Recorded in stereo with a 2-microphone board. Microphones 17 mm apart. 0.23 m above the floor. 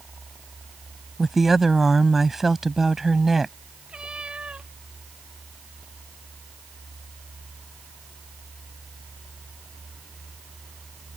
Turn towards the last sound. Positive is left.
turn(degrees=-70)  # may be behind; listen again after turning